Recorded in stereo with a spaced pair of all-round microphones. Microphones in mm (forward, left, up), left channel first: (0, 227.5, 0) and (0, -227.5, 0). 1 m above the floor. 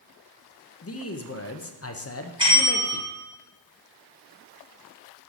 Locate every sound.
0.8 s a man speaking: 30° left (ahead or behind), 0.6 m
2.4 s a bell: 10° right (ahead or behind), 3 m